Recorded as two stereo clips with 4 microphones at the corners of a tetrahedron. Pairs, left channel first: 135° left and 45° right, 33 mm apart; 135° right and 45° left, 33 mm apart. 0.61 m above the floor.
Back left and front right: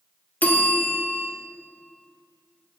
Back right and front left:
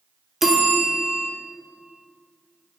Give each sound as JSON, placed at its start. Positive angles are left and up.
{"t": 0.4, "sound": "a bell", "azimuth_deg": 125, "distance_m": 0.8}